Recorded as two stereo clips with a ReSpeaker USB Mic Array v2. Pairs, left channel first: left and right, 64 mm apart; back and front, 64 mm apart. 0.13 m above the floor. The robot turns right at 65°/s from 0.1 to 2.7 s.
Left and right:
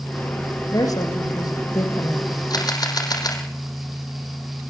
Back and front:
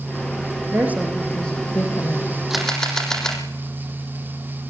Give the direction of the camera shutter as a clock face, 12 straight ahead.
9 o'clock.